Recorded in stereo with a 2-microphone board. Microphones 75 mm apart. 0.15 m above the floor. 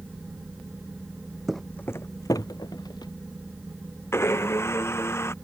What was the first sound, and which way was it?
Footsteps, centre (ahead or behind).